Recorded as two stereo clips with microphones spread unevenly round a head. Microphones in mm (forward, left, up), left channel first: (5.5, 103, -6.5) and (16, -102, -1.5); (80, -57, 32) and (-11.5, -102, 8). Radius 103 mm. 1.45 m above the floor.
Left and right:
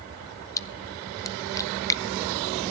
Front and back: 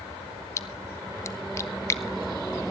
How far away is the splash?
About 0.5 m.